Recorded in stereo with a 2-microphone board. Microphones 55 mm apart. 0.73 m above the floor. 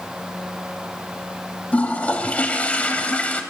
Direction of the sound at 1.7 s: 30° left (ahead or behind).